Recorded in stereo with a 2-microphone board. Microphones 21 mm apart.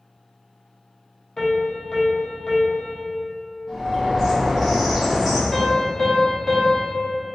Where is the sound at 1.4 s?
25° left (ahead or behind), 0.6 m.